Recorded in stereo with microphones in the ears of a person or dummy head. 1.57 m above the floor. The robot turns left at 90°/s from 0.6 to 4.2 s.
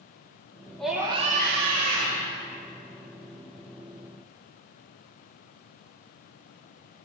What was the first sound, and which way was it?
A scream, 5° left.